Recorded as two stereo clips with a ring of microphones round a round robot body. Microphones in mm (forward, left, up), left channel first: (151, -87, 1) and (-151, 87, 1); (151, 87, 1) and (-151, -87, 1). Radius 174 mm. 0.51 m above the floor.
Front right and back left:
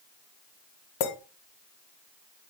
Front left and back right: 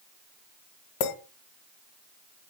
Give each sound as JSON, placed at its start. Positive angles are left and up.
{"t": 1.0, "sound": "a clink", "azimuth_deg": 0, "distance_m": 1.9}